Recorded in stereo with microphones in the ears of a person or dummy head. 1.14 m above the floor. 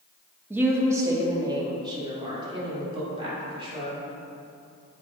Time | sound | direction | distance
0.5 | a woman speaking | 10° right (ahead or behind) | 0.9 m